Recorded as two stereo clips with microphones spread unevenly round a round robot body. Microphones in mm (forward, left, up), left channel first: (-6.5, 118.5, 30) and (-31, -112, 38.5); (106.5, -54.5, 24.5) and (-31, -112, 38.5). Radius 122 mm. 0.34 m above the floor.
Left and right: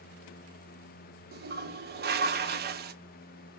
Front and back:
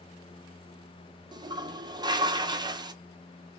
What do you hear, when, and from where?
1.3 s a toilet flushing: 100° right, 0.6 m